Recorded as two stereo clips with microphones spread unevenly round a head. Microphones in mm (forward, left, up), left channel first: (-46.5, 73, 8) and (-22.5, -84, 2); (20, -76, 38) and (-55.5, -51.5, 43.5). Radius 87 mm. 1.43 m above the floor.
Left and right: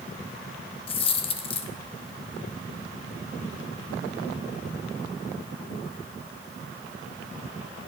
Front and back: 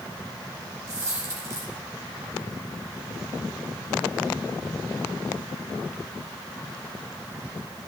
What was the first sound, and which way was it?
A dropped coin, 115° left.